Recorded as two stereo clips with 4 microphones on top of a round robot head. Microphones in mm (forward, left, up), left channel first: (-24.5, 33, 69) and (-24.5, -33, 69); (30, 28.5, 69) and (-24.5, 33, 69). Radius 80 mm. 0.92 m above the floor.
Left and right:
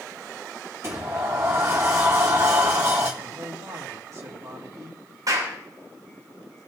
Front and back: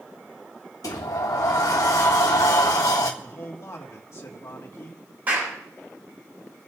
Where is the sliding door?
35° right, 1.5 m.